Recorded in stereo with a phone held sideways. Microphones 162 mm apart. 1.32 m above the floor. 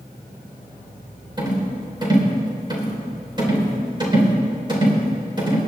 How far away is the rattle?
About 4 m.